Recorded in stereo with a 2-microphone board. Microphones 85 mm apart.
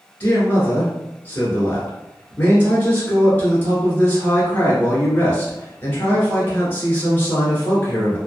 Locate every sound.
0.2 s a man speaking: 25° left (ahead or behind), 1.3 m